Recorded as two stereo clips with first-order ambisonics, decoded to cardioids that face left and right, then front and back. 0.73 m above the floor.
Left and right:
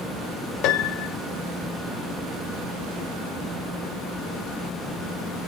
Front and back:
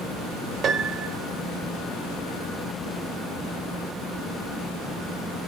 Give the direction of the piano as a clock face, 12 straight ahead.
8 o'clock.